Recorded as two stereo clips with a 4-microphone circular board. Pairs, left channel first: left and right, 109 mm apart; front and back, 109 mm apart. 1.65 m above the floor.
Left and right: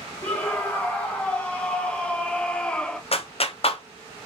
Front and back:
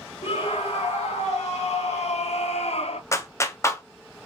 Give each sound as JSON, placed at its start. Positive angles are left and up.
{"t": 0.2, "sound": "a scream", "azimuth_deg": 15, "distance_m": 3.0}
{"t": 3.1, "sound": "a clap", "azimuth_deg": 65, "distance_m": 0.8}